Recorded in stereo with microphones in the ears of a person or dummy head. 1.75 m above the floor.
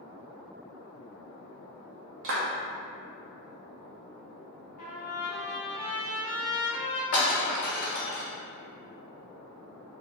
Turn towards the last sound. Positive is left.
turn(degrees=55)  # may be behind; listen again after turning